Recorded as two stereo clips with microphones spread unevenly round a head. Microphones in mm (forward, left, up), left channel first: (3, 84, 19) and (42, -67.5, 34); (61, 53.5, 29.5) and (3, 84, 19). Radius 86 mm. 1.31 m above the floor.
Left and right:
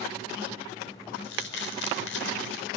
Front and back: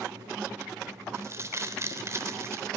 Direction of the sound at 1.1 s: 105° left.